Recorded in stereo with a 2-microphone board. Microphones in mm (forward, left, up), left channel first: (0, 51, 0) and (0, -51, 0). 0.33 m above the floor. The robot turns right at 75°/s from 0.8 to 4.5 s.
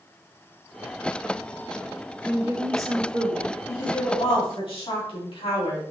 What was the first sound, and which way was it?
A woman speaking, 170° right.